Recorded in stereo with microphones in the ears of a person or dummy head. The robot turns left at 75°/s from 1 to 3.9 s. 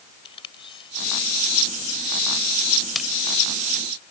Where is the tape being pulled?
30° left (ahead or behind); by 3.1 s 10° right (ahead or behind).